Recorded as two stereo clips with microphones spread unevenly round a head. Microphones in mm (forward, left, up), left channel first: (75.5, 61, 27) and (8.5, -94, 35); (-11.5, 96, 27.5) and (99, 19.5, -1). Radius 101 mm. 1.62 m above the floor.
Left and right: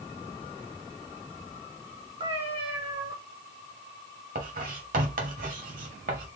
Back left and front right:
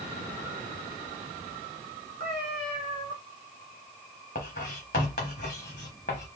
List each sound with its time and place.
2.2 s a cat meowing: 70° right, 2.0 m
4.3 s writing: 160° right, 0.7 m